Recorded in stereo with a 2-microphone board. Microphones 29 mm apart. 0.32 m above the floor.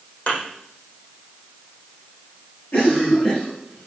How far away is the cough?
About 8 m.